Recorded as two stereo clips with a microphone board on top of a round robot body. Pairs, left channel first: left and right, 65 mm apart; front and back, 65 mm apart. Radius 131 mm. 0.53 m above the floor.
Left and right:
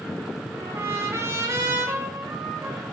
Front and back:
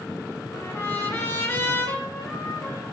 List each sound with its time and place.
0.5 s a trumpet: 45° right, 4.5 m